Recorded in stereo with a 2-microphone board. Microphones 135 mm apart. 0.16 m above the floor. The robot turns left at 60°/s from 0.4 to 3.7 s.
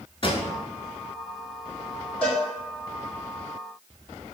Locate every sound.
0.2 s a pop: 40° left (ahead or behind), 0.7 m
2.2 s a cowbell: 10° left (ahead or behind), 1.5 m; by 2.4 s 5° right (ahead or behind), 1.5 m